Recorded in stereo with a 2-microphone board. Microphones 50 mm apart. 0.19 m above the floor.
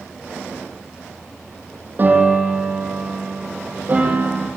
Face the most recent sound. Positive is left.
turn(degrees=-35)  # may be behind; listen again after turning